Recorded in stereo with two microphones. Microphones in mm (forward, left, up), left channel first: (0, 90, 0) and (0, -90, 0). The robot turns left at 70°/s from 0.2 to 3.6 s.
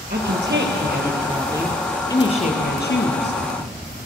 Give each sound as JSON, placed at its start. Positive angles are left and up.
{"t": 0.1, "sound": "a woman speaking", "azimuth_deg": -65, "distance_m": 3.0}